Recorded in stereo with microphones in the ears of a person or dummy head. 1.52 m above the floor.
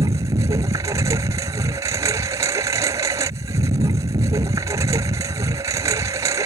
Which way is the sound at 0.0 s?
15° right (ahead or behind).